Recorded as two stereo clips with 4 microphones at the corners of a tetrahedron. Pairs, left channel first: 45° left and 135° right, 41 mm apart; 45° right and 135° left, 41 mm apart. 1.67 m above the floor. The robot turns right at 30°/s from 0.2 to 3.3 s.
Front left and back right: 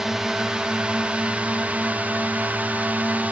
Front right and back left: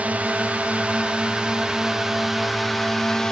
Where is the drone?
150° left; by 3.3 s 115° right.